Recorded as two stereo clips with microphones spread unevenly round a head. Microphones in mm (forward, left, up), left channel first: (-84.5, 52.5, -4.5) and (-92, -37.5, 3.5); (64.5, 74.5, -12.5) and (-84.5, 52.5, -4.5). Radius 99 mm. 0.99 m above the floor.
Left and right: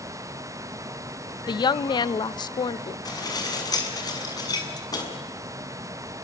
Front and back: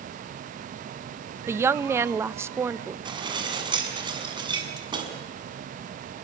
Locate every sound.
1.5 s a woman speaking: 115° left, 0.8 m
3.0 s dishes clattering: 130° left, 6.5 m